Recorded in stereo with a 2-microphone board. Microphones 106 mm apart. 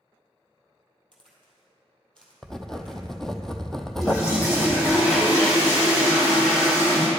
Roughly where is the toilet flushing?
Left.